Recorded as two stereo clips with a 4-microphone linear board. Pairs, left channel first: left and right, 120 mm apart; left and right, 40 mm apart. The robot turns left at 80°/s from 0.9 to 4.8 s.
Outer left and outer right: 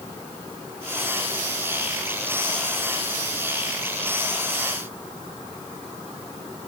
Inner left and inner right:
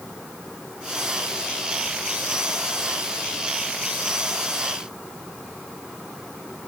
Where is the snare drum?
No snare drum in this recording.